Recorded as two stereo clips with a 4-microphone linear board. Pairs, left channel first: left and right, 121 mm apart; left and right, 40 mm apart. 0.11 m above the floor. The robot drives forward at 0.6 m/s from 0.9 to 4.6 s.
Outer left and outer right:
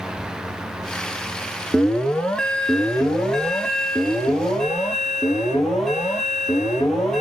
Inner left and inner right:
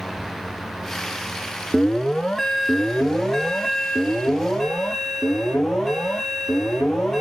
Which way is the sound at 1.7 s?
5° left (ahead or behind).